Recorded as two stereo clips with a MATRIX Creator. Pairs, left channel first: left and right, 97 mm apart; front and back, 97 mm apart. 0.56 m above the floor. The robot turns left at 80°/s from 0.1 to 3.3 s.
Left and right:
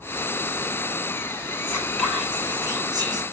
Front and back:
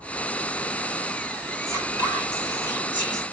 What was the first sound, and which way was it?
Whispering, 40° left.